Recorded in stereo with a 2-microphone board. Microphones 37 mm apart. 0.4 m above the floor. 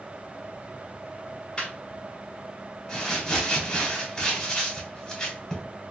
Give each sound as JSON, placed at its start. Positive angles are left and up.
{"t": 1.6, "sound": "laughter", "side_deg": 25, "distance_m": 1.5}
{"t": 2.9, "sound": "crumpling", "side_deg": 15, "distance_m": 1.2}